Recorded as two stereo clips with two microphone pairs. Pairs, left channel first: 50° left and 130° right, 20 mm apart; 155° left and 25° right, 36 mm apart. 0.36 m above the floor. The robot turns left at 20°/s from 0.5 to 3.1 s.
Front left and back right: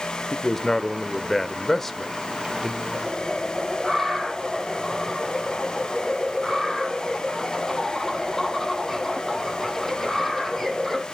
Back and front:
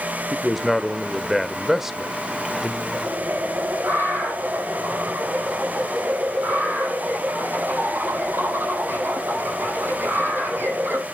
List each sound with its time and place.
0.3 s a man speaking: 50° left, 0.8 m; by 2.8 s 5° left, 0.8 m
2.9 s a bird: 25° right, 4.5 m